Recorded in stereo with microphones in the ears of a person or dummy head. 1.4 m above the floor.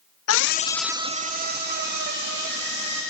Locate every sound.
0.3 s a scream: 70° left (ahead or behind), 0.7 m; by 3.0 s 55° right (ahead or behind), 3 m